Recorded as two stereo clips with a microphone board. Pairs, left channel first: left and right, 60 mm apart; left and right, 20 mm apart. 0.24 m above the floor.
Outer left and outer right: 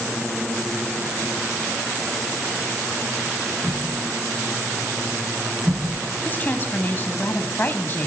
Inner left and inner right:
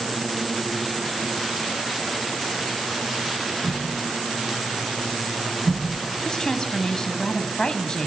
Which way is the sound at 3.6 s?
10° left (ahead or behind).